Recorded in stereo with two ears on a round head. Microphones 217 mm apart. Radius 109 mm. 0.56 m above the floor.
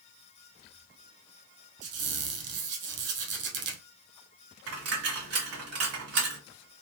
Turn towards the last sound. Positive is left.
turn(degrees=-70)  # may be behind; listen again after turning